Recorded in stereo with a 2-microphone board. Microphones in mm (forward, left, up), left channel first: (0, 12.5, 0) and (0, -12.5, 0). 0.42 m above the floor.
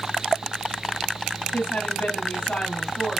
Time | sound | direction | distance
1.5 | a woman speaking | 70° left (ahead or behind) | 2.5 m